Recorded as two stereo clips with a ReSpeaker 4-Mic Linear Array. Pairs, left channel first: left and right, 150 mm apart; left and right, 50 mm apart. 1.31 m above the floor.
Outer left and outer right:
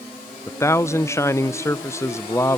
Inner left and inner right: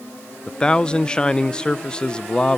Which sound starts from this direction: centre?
A man speaking, at 0.5 s.